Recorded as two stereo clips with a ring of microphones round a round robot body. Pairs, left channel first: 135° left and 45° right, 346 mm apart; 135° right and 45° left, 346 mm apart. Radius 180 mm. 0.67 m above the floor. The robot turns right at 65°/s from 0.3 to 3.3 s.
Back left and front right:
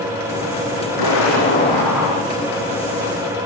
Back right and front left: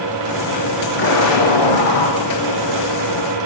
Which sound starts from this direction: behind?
An explosion, at 1.0 s.